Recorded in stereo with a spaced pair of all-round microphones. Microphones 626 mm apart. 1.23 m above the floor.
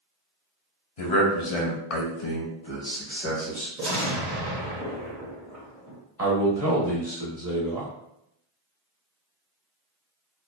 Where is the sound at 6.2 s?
25° right (ahead or behind), 1.3 m.